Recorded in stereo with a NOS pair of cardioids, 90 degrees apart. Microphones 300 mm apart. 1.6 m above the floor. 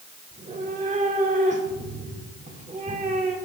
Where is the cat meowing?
25° right, 3 m.